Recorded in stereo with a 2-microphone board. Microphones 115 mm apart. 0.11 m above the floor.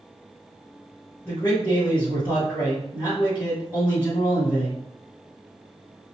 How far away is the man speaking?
About 1.7 m.